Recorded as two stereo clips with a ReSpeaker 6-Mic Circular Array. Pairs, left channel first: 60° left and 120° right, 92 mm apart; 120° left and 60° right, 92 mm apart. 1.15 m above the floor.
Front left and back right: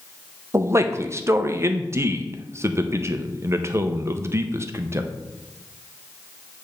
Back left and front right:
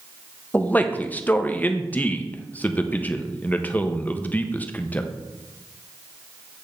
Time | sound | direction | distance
0.5 | a man speaking | 170° right | 0.7 m